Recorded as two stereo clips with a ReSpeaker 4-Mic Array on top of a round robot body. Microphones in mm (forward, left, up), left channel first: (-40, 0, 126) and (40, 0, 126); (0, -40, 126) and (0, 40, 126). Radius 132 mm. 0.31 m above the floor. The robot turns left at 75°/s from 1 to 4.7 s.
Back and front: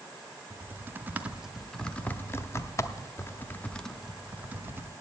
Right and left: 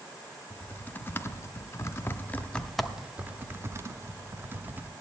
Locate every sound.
0.5 s typing on a keyboard: 45° right, 0.9 m; by 4.9 s 40° left, 0.9 m